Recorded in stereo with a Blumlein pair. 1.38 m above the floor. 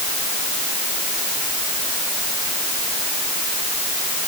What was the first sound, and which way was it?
Only background noise.